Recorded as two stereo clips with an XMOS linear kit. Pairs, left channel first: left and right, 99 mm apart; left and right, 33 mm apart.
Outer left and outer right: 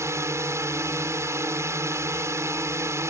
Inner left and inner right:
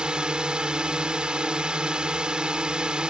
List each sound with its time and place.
0.0 s a drone: 30° right (ahead or behind)